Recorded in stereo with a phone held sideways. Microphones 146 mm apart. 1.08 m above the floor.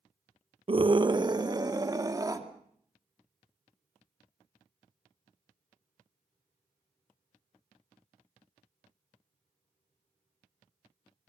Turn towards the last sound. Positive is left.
turn(degrees=-25)  # may be behind; listen again after turning